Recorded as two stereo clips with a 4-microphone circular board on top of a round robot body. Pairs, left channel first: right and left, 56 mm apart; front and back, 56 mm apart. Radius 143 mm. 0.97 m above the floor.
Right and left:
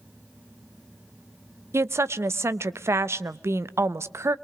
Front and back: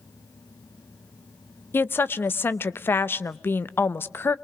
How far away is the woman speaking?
About 1.0 m.